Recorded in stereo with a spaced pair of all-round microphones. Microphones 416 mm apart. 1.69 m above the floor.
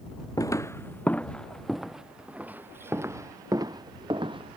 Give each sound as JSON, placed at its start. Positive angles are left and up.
{"t": 0.4, "sound": "footsteps", "side_deg": 10}